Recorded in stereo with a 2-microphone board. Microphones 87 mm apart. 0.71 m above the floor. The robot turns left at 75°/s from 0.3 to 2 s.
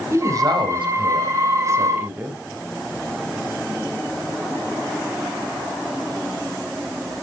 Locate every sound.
0.1 s a woman speaking: 40° right, 4 m; by 2.4 s 165° right, 4 m